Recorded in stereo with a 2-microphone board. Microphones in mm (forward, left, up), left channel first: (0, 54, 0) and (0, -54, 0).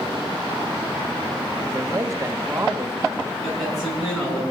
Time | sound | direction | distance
1.6 | a man speaking | 30° right (ahead or behind) | 1.2 m
3.4 | a man speaking | centre (ahead or behind) | 8.5 m